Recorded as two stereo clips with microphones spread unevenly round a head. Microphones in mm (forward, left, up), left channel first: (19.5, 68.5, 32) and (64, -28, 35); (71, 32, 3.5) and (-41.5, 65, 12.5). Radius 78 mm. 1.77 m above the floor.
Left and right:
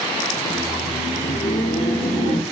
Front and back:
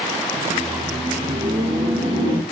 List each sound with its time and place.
0.3 s laughter: 120° left, 0.5 m; by 2.4 s 115° left, 1.7 m